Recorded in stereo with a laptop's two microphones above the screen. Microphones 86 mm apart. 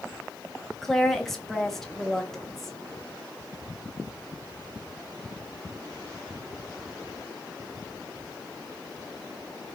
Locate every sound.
0.8 s a woman speaking: 5° left (ahead or behind), 1.1 m